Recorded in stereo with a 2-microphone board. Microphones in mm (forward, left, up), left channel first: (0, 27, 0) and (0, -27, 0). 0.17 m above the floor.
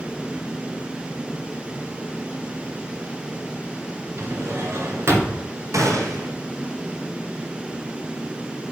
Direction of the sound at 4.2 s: 50° right (ahead or behind).